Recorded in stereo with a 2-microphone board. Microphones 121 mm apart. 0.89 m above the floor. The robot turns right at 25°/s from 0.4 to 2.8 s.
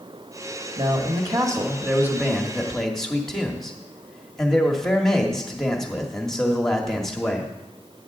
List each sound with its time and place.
0.8 s a man speaking: 45° right, 1.6 m; by 7.5 s 5° left, 1.6 m